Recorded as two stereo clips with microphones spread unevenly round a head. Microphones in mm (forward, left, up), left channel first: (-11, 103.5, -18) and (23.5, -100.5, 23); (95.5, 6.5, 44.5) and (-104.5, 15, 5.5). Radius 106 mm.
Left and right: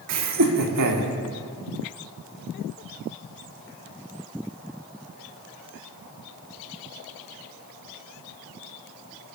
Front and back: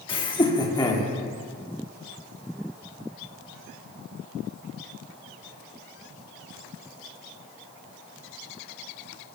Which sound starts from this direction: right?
Laughter, at 0.1 s.